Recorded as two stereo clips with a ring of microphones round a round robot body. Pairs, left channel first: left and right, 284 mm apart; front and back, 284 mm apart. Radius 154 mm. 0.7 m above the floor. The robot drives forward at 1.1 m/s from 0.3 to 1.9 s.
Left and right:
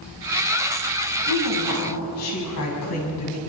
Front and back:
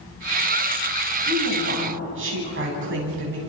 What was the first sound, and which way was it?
A woman speaking, 130° left.